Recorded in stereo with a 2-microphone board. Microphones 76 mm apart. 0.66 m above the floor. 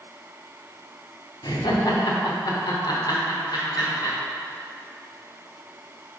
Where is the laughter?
65° left (ahead or behind), 1.3 m.